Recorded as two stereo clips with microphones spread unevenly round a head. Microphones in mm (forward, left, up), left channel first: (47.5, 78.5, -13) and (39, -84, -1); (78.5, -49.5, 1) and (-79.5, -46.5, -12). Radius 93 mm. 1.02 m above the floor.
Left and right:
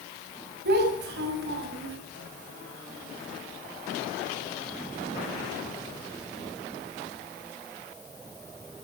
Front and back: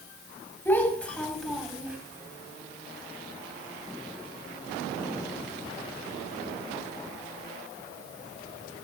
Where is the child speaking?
80° right, 4.5 m; by 2.0 s 95° right, 4.5 m.